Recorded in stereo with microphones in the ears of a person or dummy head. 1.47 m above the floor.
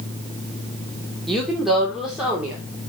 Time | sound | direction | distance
1.3 | a woman speaking | 5° left (ahead or behind) | 3 m